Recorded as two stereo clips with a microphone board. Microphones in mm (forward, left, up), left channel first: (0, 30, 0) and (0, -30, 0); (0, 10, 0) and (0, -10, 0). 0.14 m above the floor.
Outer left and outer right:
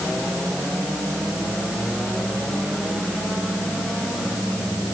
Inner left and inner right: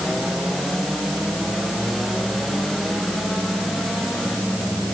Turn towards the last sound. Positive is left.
No sound to turn to.